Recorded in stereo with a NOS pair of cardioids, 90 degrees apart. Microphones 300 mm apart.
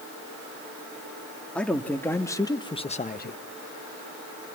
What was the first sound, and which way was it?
A man speaking, 5° left.